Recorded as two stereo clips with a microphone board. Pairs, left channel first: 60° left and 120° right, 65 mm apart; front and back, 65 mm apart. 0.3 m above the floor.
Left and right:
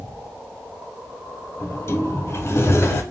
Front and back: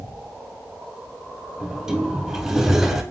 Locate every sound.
1.6 s a sliding door: 100° left, 0.8 m